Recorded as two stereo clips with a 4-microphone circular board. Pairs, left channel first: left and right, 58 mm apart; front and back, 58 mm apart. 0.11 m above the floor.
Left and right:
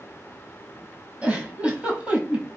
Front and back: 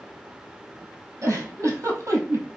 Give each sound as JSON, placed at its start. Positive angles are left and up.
{"t": 1.2, "sound": "a giggle", "azimuth_deg": -155, "distance_m": 1.1}